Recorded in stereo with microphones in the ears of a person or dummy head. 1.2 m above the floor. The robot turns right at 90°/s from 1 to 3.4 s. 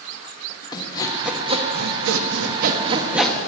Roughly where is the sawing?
Behind.